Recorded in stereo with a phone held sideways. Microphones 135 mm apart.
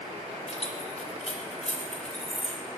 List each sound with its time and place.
0.5 s keys jangling: 55° left (ahead or behind), 3.5 m